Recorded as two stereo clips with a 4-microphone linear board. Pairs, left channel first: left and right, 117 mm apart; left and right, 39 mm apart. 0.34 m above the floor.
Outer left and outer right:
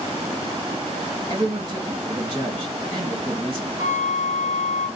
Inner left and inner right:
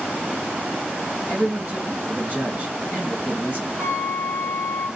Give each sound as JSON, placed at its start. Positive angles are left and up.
{"t": 1.3, "sound": "a man speaking", "side_deg": -35, "distance_m": 2.0}
{"t": 3.8, "sound": "a flute", "side_deg": 85, "distance_m": 1.0}